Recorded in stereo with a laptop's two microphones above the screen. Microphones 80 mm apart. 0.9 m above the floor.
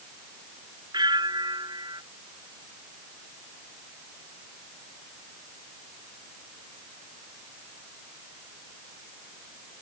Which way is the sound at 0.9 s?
65° right (ahead or behind).